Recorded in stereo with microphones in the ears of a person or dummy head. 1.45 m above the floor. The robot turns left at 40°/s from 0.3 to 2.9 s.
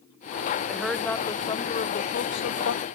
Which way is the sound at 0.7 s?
175° right.